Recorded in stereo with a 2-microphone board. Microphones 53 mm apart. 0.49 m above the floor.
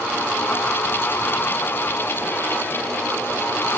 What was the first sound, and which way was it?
Only background noise.